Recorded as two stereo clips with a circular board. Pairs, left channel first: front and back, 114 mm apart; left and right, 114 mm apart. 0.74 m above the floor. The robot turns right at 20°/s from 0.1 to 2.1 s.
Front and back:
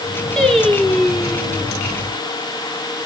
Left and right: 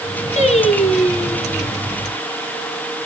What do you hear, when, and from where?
0.4 s singing: 85° left, 1.8 m; by 1.7 s 115° left, 1.8 m